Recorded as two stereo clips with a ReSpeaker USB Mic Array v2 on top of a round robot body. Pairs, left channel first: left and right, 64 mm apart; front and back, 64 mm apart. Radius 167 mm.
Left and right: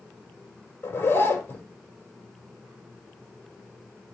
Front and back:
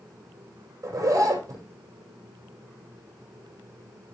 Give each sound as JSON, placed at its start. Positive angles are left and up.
{"t": 0.8, "sound": "a zipper", "azimuth_deg": 145, "distance_m": 4.5}